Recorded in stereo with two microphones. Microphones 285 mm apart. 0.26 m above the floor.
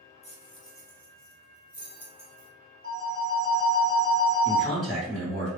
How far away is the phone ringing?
About 1.1 m.